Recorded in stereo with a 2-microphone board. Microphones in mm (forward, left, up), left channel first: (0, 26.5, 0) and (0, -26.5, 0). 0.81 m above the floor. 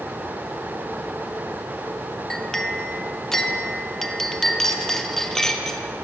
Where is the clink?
10° left (ahead or behind), 0.7 m.